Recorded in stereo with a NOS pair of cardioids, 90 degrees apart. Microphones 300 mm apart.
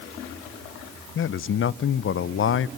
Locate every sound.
1.1 s a man speaking: 45° left, 0.7 m